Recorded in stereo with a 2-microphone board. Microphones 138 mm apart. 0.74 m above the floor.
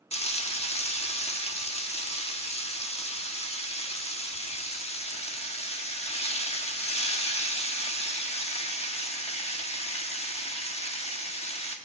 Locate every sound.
0.1 s frying: 50° left (ahead or behind), 1.0 m